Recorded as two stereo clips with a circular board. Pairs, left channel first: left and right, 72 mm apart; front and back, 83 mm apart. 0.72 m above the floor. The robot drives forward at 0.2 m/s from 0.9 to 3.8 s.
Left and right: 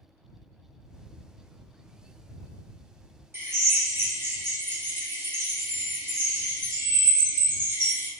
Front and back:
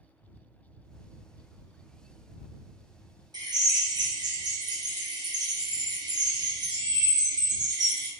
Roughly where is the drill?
Behind right.